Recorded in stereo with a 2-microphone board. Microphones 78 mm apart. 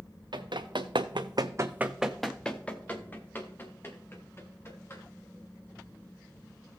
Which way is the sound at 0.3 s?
75° right (ahead or behind).